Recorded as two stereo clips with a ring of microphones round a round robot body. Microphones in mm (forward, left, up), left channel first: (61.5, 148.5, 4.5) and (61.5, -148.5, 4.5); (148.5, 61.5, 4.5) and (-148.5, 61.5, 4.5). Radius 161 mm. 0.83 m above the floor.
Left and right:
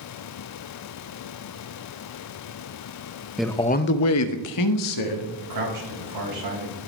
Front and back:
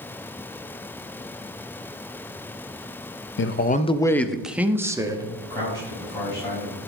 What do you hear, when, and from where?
3.4 s a man speaking: 5° right, 0.6 m; by 5.3 s 100° left, 1.7 m
5.4 s a man speaking: 80° right, 5.5 m